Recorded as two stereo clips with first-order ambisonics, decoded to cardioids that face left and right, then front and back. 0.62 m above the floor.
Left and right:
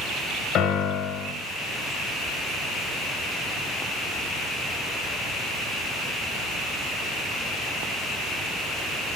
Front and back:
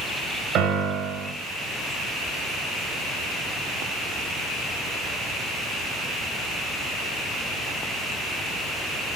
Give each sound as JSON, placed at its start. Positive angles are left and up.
{"t": 0.6, "sound": "a piano", "azimuth_deg": 140, "distance_m": 2.5}